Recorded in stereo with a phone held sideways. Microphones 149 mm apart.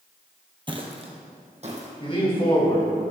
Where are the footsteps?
35° right (ahead or behind), 1.4 m; by 1.9 s 50° right (ahead or behind), 2.5 m.